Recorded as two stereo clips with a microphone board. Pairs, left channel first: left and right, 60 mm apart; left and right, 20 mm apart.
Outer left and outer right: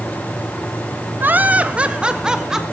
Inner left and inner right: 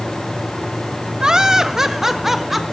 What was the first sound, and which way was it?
Laughter, 30° right (ahead or behind).